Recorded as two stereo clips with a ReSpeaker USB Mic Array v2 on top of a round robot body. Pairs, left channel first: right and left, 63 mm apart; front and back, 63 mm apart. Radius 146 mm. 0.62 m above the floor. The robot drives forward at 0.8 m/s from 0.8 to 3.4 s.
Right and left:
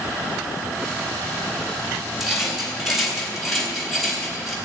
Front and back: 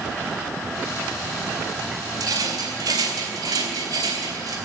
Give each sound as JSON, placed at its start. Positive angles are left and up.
{"t": 2.2, "sound": "a rattle", "azimuth_deg": 175, "distance_m": 3.5}